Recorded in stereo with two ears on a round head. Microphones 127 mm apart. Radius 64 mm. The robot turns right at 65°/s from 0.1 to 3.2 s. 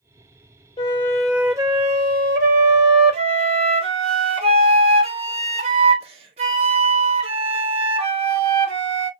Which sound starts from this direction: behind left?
A flute, at 0.8 s.